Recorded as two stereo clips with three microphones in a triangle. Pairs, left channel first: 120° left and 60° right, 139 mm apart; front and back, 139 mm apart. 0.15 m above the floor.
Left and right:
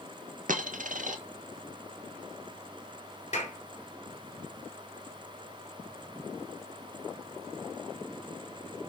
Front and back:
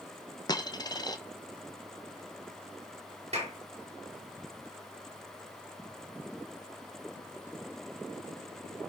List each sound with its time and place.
0.5 s a dropped coin: 60° right, 1.2 m
3.3 s a clap: 145° left, 2.5 m